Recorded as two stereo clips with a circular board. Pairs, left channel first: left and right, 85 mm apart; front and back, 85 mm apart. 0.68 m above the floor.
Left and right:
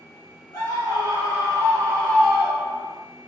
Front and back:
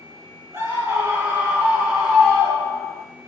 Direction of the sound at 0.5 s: 125° left.